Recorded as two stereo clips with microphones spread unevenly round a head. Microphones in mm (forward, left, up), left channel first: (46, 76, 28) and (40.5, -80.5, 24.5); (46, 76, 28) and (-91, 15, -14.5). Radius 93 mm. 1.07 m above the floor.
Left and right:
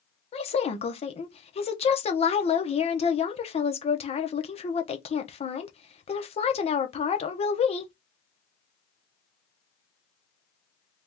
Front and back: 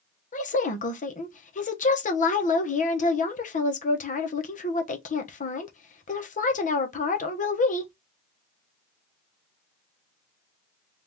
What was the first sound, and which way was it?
A woman speaking, 55° left.